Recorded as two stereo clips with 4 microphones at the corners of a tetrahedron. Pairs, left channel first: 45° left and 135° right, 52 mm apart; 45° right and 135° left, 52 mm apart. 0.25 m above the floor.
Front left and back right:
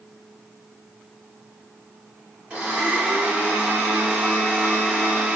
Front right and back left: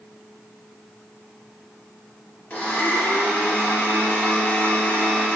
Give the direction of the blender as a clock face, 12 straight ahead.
3 o'clock.